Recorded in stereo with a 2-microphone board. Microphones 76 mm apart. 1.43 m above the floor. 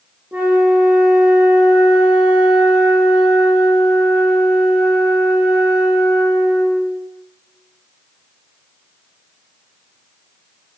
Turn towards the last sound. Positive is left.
turn(degrees=-20)  # may be behind; listen again after turning